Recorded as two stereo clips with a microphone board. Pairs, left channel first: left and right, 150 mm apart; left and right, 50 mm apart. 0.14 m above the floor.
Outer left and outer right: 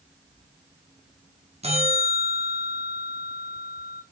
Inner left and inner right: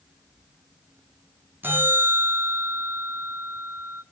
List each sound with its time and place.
1.6 s a bell: 40° right (ahead or behind), 2 m